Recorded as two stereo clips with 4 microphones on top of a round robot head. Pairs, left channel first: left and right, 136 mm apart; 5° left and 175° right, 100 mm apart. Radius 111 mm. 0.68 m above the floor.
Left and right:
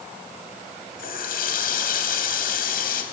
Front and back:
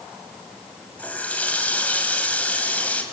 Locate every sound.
1.0 s a running tap: 80° left, 3.5 m